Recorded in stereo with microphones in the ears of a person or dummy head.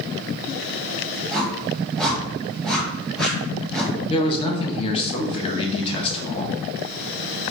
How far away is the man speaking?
About 0.9 m.